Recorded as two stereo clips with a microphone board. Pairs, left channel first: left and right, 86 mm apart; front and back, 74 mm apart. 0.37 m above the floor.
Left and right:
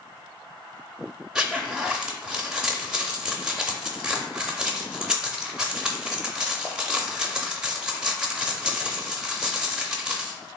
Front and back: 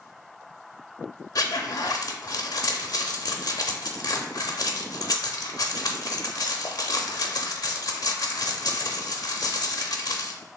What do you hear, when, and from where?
1.4 s a zipper: 10° right, 0.5 m